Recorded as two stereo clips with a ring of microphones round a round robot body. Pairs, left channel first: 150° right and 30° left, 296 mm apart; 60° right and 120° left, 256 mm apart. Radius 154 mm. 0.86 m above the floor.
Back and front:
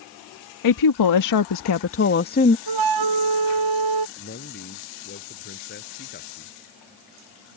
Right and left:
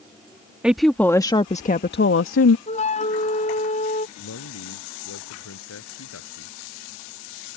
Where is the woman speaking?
155° right; by 2.6 s 85° right.